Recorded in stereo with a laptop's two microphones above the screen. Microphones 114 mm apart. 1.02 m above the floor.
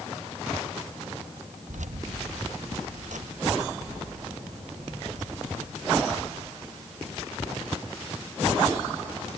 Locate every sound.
1.7 s keys jangling: 85° right, 0.8 m